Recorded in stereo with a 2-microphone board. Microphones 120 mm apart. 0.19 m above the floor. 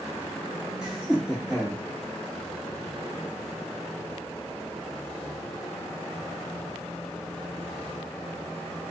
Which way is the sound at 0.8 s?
5° right (ahead or behind).